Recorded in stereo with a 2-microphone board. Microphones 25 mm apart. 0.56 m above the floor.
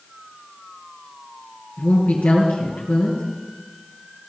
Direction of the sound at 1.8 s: 75° left (ahead or behind).